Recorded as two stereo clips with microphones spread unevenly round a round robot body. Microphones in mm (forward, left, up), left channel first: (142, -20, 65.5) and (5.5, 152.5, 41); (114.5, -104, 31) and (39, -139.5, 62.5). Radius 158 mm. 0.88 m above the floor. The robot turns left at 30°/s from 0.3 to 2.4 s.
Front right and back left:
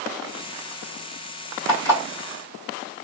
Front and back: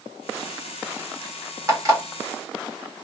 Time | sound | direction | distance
1.7 | an alarm clock | 100° right | 1.5 m